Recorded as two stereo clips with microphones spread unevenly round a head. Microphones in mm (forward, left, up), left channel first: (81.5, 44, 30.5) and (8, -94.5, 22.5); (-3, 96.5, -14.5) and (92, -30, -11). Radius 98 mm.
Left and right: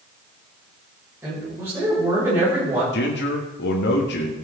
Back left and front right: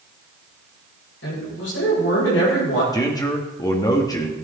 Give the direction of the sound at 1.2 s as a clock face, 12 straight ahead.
7 o'clock.